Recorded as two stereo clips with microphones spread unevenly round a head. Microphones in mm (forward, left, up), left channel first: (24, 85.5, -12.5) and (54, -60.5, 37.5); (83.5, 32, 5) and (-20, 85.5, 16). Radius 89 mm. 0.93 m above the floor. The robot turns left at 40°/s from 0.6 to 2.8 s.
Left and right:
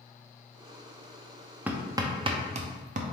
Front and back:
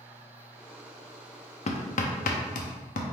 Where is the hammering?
Straight ahead, 0.6 m; by 3.1 s 45° right, 0.6 m.